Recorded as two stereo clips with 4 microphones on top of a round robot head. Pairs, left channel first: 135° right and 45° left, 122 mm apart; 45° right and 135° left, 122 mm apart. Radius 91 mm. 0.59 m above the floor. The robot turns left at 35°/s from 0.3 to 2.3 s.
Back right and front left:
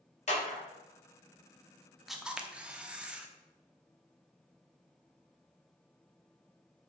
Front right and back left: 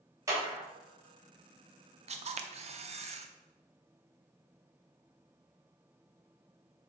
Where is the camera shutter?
135° left, 0.8 m; by 3.3 s 125° left, 0.8 m.